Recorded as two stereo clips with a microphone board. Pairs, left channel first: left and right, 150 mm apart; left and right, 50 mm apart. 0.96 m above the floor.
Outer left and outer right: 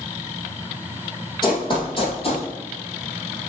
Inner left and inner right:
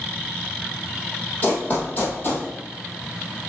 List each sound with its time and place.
1.4 s running footsteps: 30° left (ahead or behind), 2 m; by 2.5 s 40° left (ahead or behind), 1.9 m